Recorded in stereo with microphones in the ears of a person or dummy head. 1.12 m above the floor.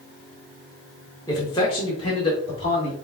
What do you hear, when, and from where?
1.3 s a man speaking: 25° left (ahead or behind), 1.4 m; by 3.0 s 40° left (ahead or behind), 2.5 m